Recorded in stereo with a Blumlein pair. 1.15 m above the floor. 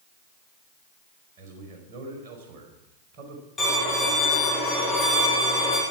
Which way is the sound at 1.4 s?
45° right.